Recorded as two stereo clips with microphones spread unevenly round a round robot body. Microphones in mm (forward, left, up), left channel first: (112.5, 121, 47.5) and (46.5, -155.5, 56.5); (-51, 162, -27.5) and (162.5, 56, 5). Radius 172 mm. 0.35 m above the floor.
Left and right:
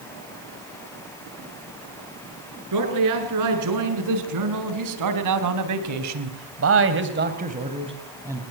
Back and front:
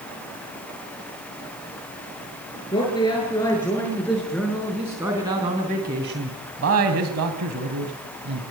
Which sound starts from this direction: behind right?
A man speaking, at 2.7 s.